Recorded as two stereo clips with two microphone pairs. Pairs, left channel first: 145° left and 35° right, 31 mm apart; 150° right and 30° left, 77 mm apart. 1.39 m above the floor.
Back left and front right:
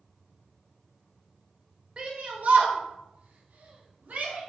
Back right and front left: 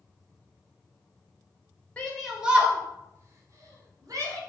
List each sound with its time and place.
2.0 s a shout: 75° right, 0.6 m; by 4.4 s straight ahead, 1.7 m